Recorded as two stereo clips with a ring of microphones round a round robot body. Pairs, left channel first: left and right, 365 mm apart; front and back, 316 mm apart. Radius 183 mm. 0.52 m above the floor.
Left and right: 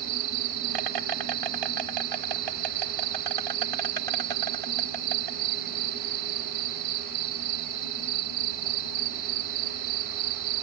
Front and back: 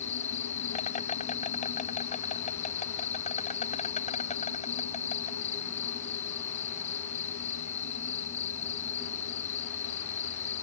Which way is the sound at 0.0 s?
70° right.